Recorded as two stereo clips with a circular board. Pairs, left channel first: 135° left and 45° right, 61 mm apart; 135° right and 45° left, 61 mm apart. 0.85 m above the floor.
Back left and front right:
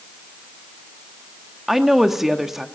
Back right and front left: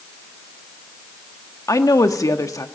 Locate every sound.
1.7 s a woman speaking: 130° right, 1.4 m